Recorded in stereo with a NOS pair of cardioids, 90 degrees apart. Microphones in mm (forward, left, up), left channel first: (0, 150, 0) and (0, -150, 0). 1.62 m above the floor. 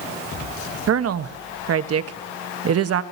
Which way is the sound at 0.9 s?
55° right.